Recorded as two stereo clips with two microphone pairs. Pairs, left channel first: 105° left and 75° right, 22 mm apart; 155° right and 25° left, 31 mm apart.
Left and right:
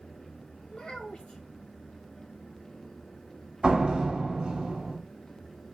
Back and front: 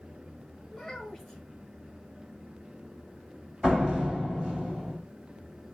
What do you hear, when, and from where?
0.7 s a child speaking: 120° left, 1.3 m
3.6 s a door slam: 50° right, 1.6 m